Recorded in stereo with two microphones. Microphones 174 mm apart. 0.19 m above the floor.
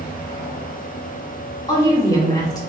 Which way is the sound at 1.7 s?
25° left (ahead or behind).